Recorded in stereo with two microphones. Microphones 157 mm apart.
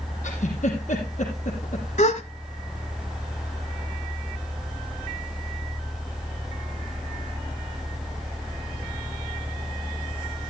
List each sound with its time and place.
0.2 s a giggle: 50° left (ahead or behind), 5.5 m
2.0 s a gasp: 50° left (ahead or behind), 1.2 m